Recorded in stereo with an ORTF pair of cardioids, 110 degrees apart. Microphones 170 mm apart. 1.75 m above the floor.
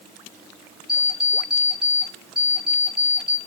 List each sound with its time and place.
0.9 s an alarm clock: straight ahead, 4 m